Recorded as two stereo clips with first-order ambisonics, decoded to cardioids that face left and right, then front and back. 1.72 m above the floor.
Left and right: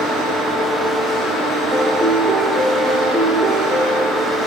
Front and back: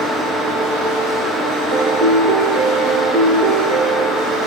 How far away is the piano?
About 1.8 m.